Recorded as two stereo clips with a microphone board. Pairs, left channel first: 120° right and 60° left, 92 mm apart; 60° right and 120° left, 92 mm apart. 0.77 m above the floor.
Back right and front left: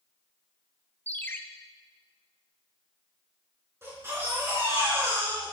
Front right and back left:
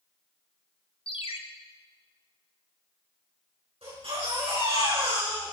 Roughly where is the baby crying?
Behind left.